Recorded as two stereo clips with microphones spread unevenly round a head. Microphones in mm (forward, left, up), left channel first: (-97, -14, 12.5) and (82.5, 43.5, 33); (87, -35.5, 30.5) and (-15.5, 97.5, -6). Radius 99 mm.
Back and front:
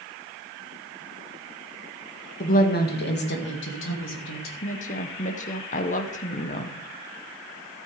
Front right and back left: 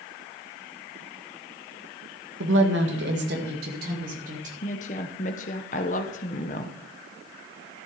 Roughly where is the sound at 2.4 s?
Behind left.